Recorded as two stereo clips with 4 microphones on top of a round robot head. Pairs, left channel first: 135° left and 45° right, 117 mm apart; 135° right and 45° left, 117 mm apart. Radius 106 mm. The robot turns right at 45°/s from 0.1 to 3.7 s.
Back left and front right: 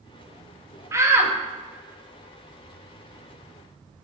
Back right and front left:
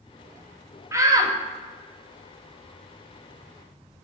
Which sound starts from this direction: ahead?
A shout, at 0.9 s.